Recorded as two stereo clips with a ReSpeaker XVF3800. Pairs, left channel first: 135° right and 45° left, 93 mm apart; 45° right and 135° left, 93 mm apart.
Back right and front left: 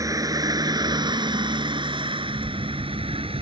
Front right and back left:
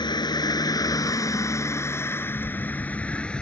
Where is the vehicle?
5° right; by 3.4 s 35° left.